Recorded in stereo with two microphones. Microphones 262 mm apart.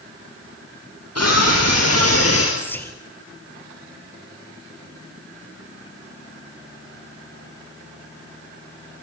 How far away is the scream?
About 4 m.